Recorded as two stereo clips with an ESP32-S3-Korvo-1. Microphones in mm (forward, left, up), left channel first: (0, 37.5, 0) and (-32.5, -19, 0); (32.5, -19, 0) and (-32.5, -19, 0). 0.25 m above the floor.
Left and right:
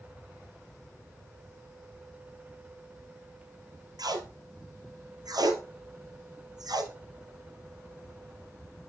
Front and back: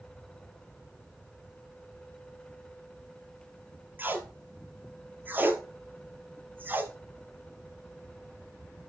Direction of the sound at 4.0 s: 120° right.